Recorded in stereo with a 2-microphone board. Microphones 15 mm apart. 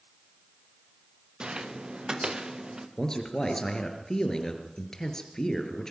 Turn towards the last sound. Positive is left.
turn(degrees=45)  # may be behind; listen again after turning